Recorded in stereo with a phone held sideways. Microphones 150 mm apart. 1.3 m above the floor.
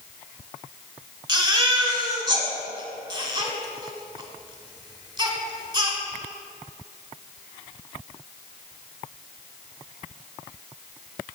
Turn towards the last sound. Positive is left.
turn(degrees=-30)  # may be behind; listen again after turning